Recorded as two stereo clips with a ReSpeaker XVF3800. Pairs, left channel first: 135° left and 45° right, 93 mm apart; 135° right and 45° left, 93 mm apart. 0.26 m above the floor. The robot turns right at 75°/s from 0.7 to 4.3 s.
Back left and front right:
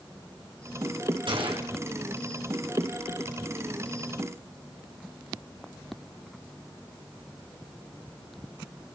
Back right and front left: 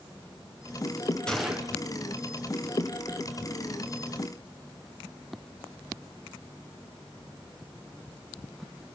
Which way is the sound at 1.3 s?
55° right.